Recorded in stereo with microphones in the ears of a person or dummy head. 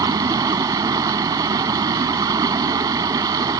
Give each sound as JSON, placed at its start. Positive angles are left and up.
{"t": 0.0, "sound": "running water", "side_deg": -20}